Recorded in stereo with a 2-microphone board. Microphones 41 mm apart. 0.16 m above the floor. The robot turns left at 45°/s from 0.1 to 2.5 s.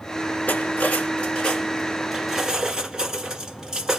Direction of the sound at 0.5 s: 75° left.